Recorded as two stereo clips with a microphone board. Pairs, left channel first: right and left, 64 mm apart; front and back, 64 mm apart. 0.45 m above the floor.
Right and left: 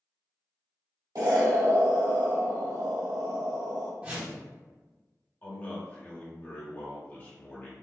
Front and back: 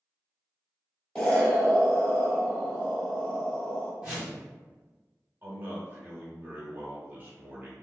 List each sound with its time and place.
1.1 s an explosion: 75° left, 1.1 m
4.0 s a whoosh: 130° left, 1.3 m
5.4 s a man speaking: 135° right, 1.1 m